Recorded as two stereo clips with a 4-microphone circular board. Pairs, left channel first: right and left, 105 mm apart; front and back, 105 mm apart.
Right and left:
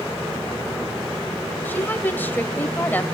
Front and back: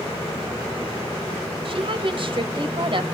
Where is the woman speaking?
160° right, 1.8 m.